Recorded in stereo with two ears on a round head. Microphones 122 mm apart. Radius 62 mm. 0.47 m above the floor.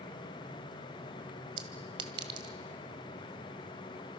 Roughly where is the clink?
Right.